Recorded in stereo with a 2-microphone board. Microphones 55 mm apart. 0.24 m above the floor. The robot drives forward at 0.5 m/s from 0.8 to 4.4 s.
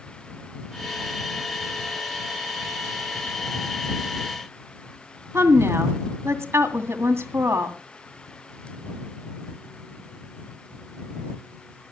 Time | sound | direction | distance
5.3 | a woman speaking | 50° right (ahead or behind) | 2 m